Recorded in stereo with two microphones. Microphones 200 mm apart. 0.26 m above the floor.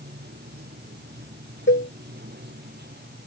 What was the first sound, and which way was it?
Running water, 55° right (ahead or behind).